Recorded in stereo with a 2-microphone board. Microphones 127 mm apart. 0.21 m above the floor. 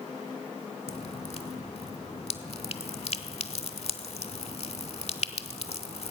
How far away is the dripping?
About 0.6 m.